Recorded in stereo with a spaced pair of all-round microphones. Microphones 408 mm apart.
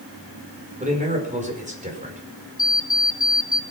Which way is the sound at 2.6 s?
30° left (ahead or behind).